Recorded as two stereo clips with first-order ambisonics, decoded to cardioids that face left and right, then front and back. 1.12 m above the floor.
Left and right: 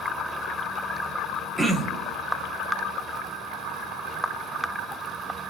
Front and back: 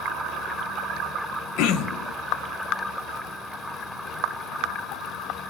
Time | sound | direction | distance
1.6 | throat clearing | 5° right | 0.6 m